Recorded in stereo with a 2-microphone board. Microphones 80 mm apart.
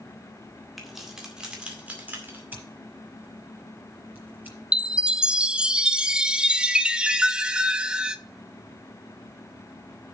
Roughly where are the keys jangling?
Centre.